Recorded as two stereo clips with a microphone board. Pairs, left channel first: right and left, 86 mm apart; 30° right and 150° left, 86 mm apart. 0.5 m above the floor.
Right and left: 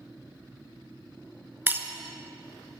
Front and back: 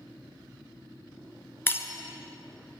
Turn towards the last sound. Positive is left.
turn(degrees=30)